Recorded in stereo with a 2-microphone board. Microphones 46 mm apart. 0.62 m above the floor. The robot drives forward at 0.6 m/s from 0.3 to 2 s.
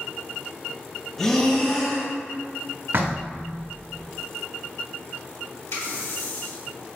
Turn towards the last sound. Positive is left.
turn(degrees=80)